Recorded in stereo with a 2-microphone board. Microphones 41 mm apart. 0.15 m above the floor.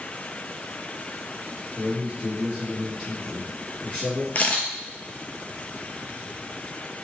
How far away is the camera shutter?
About 0.5 m.